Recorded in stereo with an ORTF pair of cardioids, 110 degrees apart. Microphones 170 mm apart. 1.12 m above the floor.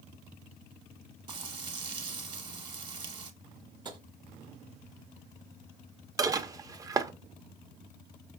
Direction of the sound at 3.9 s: 25° right.